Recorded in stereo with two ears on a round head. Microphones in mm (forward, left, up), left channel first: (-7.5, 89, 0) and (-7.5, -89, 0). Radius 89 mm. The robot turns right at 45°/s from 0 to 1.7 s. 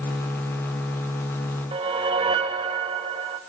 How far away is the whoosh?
About 1.3 m.